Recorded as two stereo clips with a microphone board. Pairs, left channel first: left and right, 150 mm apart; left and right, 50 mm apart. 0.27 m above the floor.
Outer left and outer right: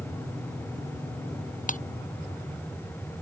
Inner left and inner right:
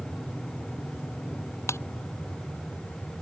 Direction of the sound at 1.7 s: 55° left (ahead or behind).